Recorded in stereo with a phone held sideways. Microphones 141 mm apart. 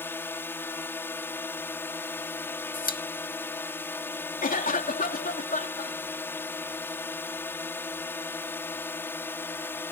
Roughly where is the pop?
Left.